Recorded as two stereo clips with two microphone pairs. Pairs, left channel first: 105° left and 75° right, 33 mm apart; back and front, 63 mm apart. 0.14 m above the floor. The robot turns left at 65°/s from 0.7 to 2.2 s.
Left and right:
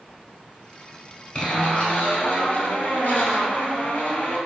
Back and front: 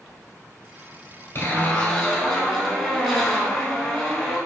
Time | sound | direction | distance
1.4 | a zipper | 150° left | 1.1 m